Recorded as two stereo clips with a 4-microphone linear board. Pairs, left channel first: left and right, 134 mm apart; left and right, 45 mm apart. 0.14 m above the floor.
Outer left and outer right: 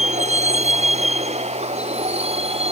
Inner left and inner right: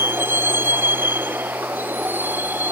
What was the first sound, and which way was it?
A vehicle, 60° right (ahead or behind).